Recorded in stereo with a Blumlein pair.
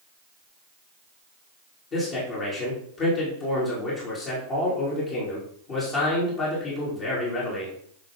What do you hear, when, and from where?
1.9 s a man speaking: 30° left, 3.5 m